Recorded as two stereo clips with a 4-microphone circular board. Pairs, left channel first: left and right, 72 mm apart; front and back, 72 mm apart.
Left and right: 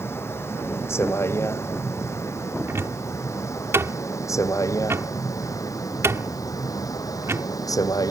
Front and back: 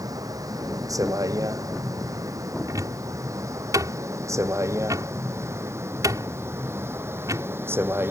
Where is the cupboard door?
140° right.